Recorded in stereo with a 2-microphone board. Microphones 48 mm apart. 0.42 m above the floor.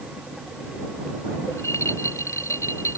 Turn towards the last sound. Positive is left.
turn(degrees=85)